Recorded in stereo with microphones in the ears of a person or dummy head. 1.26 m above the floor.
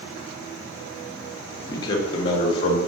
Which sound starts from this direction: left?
A man speaking, at 1.7 s.